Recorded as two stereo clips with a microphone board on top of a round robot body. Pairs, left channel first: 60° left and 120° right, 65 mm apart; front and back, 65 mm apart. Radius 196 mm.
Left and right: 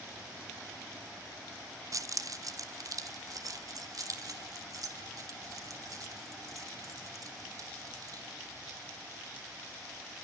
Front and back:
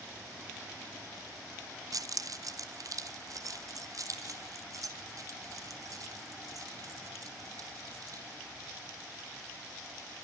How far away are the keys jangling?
About 0.8 m.